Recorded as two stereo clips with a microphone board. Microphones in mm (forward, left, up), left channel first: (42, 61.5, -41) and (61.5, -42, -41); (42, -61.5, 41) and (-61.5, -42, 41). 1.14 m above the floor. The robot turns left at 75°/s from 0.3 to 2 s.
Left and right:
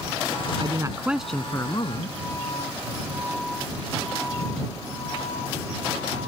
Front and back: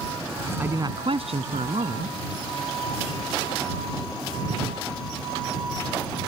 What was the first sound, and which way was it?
A man speaking, 120° right.